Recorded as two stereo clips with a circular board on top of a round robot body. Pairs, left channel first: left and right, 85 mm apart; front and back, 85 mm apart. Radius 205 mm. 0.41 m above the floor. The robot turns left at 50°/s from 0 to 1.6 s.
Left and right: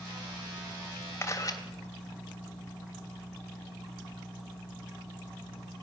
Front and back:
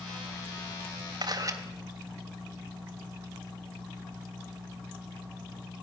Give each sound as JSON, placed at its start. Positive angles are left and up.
{"t": 1.2, "sound": "a camera shutter", "azimuth_deg": 150, "distance_m": 3.0}